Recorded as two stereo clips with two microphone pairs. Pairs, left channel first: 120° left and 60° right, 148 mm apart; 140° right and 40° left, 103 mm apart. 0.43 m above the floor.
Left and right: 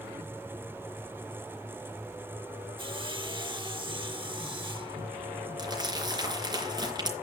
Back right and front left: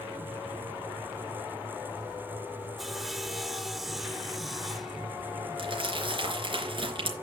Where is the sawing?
50° right, 0.8 m.